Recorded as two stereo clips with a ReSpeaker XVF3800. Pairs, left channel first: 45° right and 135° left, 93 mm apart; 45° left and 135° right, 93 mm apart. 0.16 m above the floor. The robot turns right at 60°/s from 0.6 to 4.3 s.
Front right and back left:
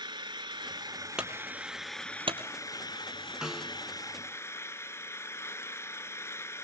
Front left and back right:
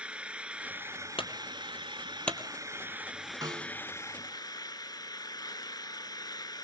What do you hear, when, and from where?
0.0 s an engine running: 150° left, 1.0 m; by 6.7 s 10° left, 1.0 m
1.2 s a clunk: 55° left, 2.5 m; by 2.4 s 130° left, 2.5 m
3.4 s a snare drum: 145° right, 1.9 m; by 3.8 s 120° right, 1.9 m